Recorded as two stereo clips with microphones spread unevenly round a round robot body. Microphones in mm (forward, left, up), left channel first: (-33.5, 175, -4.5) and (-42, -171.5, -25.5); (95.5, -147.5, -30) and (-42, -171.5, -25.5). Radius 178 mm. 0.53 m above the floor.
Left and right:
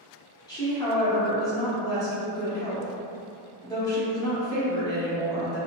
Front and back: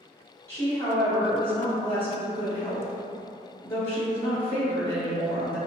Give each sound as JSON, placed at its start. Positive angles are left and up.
{"t": 0.5, "sound": "a woman speaking", "azimuth_deg": 20, "distance_m": 0.6}